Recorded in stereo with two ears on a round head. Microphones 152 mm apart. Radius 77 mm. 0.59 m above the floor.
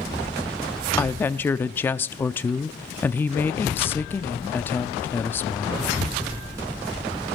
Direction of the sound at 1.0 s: 10° left (ahead or behind).